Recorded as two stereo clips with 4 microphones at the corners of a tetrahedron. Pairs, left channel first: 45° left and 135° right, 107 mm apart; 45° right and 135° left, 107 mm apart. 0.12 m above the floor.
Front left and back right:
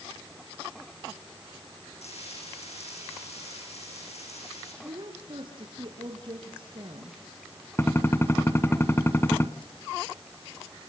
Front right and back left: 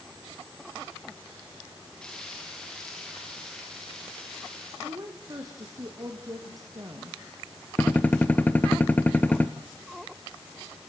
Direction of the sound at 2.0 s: 35° left.